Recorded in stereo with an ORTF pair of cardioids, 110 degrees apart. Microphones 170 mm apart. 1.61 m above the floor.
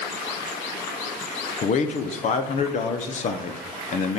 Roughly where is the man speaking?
Ahead left.